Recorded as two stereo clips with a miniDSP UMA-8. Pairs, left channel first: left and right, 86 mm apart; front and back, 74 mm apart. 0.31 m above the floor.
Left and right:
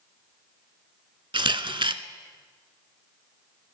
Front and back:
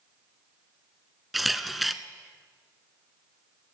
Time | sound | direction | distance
1.3 | a camera shutter | 90° right | 0.6 m